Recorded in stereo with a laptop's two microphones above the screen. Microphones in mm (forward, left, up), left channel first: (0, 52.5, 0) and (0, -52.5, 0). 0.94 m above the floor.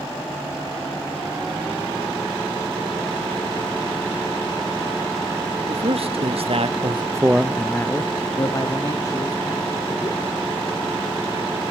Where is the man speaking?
65° right (ahead or behind), 1.6 m; by 10.2 s 40° left (ahead or behind), 3 m.